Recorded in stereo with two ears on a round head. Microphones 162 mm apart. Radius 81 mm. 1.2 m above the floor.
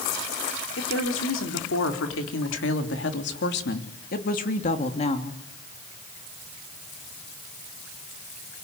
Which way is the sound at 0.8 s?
80° left.